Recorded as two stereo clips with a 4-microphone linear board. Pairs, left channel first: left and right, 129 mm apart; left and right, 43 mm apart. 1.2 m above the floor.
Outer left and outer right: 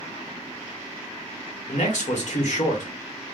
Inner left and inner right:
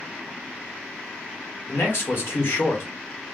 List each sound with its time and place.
1.7 s a man speaking: 70° left (ahead or behind), 1.3 m